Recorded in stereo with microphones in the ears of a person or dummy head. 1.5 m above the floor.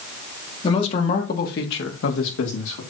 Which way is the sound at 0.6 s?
35° left (ahead or behind).